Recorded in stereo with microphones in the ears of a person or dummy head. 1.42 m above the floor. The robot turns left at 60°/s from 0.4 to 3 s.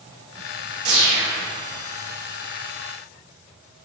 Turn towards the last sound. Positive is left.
turn(degrees=105)